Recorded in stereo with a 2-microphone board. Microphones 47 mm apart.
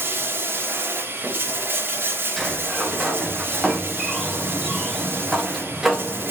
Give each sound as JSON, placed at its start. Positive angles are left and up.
{"t": 0.0, "sound": "running water", "side_deg": -45, "distance_m": 0.9}
{"t": 2.4, "sound": "a sliding door", "side_deg": -5, "distance_m": 0.8}